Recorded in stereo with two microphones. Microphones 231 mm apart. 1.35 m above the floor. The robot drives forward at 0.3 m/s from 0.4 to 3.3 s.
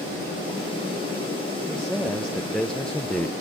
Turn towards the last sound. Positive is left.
turn(degrees=5)  # may be behind; listen again after turning